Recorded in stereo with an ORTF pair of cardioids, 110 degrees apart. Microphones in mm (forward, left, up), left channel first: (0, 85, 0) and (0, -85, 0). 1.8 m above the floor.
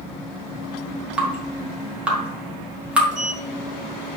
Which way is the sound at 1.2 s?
5° right.